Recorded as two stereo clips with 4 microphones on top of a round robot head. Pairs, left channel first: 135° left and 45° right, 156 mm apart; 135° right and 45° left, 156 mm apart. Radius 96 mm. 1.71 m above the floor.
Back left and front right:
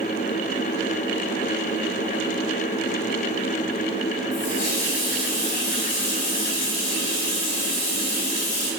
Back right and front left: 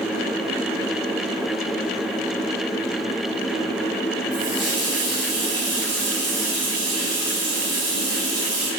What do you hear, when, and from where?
4.3 s a running tap: 105° left, 4 m